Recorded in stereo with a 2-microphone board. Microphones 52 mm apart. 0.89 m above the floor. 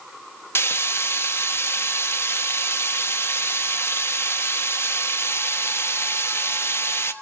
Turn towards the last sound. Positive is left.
turn(degrees=55)  # may be behind; listen again after turning